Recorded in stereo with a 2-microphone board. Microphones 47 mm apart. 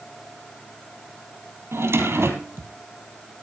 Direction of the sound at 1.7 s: 65° right (ahead or behind).